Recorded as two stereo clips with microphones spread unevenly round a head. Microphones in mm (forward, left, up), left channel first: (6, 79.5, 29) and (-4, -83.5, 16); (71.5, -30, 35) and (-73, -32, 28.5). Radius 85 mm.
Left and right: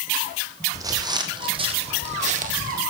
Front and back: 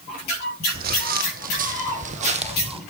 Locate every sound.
0.7 s footsteps: 165° right, 2.5 m; by 2.8 s 130° right, 1.8 m